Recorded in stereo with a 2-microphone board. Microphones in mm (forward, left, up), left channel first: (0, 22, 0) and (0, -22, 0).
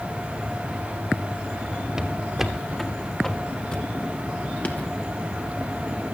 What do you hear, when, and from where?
2.0 s footsteps: 15° right (ahead or behind), 2.5 m; by 4.9 s 35° left (ahead or behind), 3 m